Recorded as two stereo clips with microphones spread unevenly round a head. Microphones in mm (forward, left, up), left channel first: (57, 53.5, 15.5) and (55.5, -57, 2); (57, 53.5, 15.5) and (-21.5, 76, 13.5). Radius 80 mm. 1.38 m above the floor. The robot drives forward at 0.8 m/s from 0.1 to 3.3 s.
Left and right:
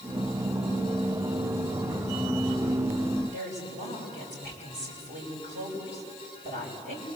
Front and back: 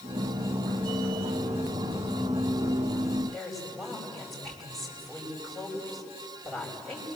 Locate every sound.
3.3 s a woman speaking: 135° right, 8 m